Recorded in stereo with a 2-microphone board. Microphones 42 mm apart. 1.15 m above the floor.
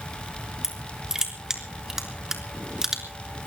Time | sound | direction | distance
0.6 | crushing | 10° right (ahead or behind) | 3 m